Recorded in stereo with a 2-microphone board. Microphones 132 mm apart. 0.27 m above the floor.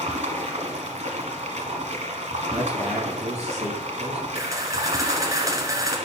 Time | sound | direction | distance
0.0 | running water | 60° right (ahead or behind) | 1.3 m
2.5 | a man speaking | 60° right (ahead or behind) | 3 m
4.3 | a camera shutter | 25° right (ahead or behind) | 1.7 m